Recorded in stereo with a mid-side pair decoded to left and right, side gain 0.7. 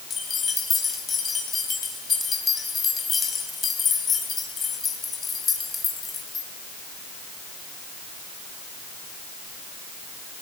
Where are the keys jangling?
30° left, 5 m.